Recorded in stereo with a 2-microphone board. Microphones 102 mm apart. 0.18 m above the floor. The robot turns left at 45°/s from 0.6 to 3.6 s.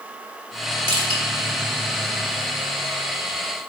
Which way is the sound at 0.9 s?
60° right (ahead or behind).